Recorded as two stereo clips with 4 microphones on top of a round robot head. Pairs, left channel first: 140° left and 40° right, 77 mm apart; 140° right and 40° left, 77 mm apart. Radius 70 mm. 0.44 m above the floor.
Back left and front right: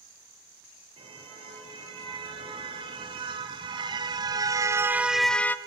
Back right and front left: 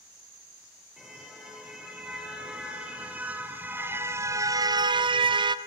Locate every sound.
1.0 s a car horn: 40° right, 6 m; by 5.6 s 70° left, 1.2 m